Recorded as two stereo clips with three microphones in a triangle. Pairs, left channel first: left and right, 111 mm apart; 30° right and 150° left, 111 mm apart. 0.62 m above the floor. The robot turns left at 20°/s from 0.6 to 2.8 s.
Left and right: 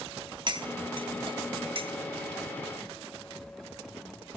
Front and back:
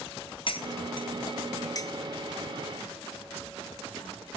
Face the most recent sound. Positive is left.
turn(degrees=-100)